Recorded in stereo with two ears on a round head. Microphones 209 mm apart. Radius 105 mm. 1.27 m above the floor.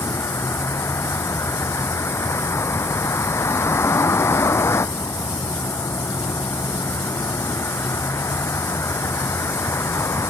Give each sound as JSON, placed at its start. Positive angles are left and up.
{"t": 0.0, "sound": "a vehicle", "side_deg": 10}